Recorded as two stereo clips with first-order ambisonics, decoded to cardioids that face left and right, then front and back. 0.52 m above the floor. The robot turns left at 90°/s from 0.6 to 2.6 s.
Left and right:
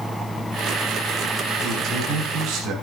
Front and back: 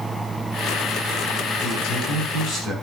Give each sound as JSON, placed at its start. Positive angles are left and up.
{"t": 1.6, "sound": "a man speaking", "azimuth_deg": 10, "distance_m": 4.0}